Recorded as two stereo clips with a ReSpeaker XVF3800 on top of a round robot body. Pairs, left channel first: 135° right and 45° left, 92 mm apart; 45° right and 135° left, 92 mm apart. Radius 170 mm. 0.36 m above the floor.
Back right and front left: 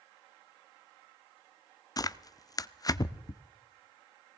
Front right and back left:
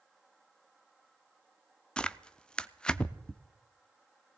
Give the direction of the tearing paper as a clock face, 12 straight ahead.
4 o'clock.